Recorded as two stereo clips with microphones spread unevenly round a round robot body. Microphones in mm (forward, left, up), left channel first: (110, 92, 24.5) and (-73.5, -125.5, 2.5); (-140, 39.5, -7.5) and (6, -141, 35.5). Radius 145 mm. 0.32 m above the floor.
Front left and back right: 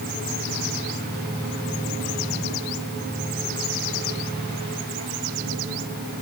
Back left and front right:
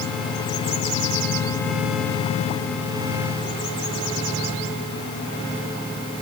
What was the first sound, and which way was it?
Only background noise.